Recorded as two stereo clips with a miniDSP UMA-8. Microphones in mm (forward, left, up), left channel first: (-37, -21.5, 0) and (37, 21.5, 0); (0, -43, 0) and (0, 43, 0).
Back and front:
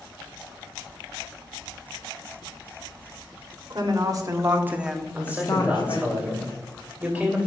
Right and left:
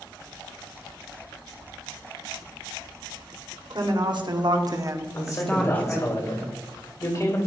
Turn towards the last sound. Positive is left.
turn(degrees=-45)